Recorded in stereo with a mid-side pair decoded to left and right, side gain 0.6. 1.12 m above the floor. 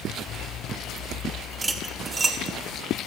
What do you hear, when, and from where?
1.6 s cutlery clinking: 25° right, 1.7 m